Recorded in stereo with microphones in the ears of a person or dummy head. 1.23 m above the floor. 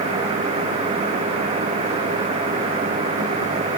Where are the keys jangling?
I don't hear keys jangling.